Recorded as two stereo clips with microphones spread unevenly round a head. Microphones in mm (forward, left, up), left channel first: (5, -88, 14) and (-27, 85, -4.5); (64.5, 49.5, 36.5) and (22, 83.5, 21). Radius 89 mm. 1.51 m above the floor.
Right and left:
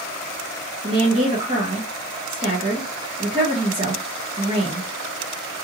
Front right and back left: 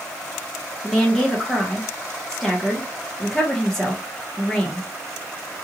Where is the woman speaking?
40° left, 0.9 m.